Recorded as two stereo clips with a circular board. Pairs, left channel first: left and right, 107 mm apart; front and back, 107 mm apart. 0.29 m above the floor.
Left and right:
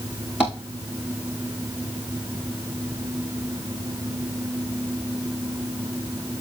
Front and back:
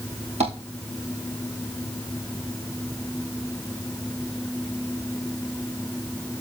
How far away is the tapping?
About 5 m.